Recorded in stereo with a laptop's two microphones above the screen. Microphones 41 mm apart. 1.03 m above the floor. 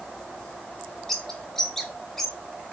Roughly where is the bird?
Centre.